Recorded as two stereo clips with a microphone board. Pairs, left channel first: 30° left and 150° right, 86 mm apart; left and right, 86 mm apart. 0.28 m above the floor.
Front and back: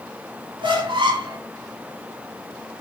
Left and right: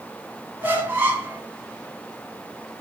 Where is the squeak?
155° right, 1.3 m.